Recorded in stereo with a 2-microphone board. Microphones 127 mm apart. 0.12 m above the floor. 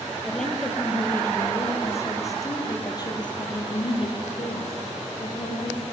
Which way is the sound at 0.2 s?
5° left (ahead or behind).